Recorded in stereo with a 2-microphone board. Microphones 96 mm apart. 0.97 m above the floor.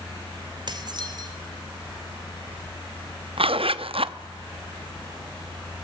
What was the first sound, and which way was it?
Dishes clattering, 50° right (ahead or behind).